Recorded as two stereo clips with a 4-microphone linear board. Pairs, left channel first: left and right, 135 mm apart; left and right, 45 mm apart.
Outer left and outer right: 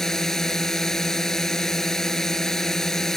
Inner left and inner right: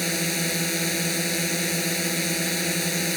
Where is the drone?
5° left (ahead or behind).